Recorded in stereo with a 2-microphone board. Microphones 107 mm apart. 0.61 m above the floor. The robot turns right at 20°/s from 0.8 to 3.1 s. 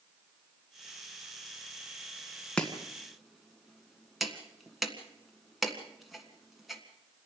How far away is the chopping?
About 1.8 m.